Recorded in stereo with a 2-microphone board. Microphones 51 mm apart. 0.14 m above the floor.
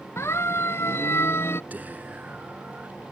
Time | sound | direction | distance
0.2 | a siren | 55° left (ahead or behind) | ?
1.7 | whispering | 35° right (ahead or behind) | ?